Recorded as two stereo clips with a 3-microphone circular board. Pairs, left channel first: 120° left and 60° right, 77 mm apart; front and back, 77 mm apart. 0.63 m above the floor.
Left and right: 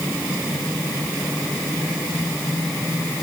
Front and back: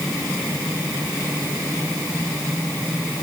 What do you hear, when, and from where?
Only background noise.